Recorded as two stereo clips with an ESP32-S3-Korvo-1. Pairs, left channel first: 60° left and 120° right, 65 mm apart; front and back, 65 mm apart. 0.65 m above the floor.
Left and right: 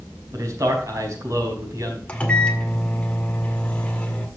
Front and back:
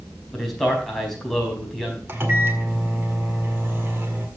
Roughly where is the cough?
I don't hear a cough.